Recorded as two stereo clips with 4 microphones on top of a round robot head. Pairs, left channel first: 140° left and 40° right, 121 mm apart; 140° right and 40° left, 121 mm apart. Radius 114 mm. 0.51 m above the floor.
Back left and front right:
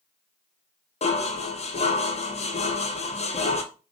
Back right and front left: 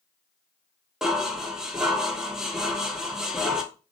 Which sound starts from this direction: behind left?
Dishes clattering, at 1.0 s.